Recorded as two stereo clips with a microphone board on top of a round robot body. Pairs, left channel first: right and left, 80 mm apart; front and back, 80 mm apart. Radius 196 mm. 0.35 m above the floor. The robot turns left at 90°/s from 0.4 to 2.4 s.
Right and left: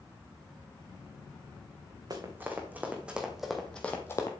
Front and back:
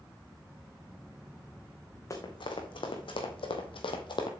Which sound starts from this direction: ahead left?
Running footsteps, at 2.1 s.